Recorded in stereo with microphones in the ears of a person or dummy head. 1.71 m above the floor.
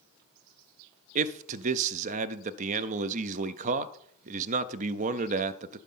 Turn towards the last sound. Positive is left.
turn(degrees=-45)  # may be behind; listen again after turning